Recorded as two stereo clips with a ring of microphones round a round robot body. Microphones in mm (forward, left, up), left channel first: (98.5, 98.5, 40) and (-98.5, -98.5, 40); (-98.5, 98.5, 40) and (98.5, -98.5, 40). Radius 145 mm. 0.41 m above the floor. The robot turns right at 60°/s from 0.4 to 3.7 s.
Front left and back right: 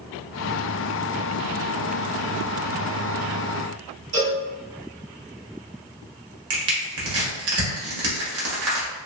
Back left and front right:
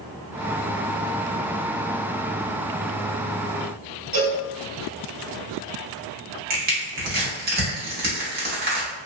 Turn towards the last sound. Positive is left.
turn(degrees=-100)